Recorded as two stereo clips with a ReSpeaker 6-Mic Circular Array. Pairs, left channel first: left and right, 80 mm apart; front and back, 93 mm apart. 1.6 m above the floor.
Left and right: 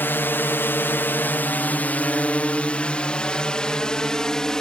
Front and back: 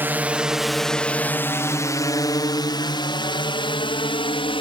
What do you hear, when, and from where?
0.0 s a drone: 130° left; by 4.6 s 10° left